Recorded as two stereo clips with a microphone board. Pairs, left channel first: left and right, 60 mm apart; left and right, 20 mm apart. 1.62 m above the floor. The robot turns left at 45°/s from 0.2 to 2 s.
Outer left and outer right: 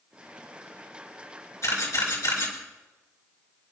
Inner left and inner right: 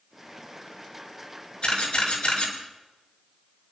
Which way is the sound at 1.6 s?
55° left (ahead or behind).